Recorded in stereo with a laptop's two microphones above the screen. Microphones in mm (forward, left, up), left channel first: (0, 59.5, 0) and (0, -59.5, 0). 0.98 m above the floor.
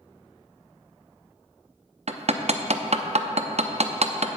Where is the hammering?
65° right (ahead or behind), 0.6 m.